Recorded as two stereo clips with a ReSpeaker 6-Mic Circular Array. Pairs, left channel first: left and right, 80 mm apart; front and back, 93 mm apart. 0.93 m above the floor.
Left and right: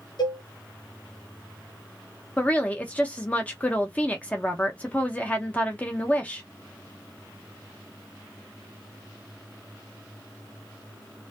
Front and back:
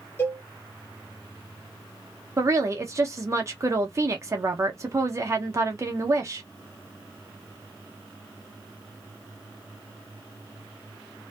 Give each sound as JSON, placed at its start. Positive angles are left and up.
{"t": 0.2, "sound": "a cowbell", "azimuth_deg": 65, "distance_m": 0.9}
{"t": 2.4, "sound": "a woman speaking", "azimuth_deg": 150, "distance_m": 0.6}